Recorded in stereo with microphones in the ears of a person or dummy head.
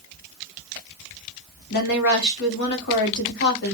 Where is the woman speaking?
55° left (ahead or behind), 0.8 m.